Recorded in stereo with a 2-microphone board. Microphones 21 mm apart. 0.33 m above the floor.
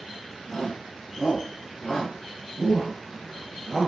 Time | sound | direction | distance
0.5 | a shout | 35° left (ahead or behind) | 3.5 m